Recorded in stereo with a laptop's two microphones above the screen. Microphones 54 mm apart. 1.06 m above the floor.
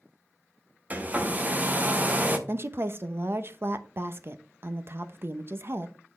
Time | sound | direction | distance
0.9 | a hair dryer | 30° right (ahead or behind) | 0.8 m
2.5 | a woman speaking | 45° right (ahead or behind) | 0.7 m